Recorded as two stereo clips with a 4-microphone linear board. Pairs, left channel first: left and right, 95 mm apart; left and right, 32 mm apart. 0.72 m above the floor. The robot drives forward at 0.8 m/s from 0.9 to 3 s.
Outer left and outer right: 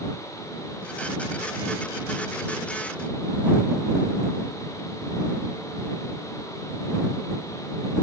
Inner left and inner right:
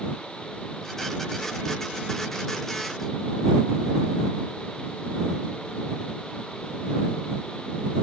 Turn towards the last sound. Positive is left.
No sound to turn to.